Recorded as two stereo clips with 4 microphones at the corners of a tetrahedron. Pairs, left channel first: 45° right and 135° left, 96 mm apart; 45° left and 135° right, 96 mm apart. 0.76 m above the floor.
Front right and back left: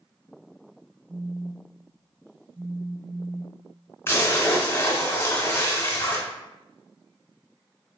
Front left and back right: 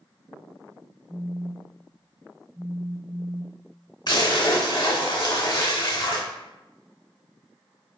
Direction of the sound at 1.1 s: 175° right.